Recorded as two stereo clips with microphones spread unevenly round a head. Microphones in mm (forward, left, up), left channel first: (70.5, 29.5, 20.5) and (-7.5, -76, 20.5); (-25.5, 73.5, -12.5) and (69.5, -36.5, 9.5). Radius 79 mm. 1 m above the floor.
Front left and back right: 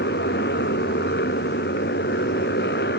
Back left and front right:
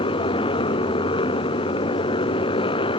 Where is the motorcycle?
75° left.